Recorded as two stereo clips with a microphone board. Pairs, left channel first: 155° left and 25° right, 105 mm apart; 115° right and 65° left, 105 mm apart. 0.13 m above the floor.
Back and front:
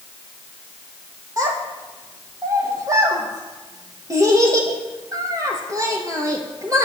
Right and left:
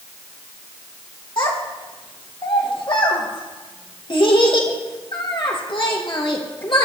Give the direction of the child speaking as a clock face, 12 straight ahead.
3 o'clock.